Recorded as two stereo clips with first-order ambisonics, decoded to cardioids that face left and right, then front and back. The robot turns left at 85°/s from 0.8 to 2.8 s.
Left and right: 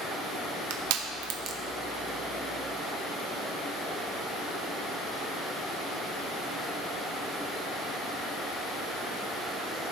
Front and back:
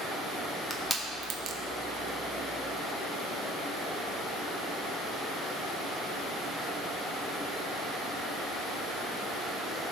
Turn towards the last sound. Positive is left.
turn(degrees=110)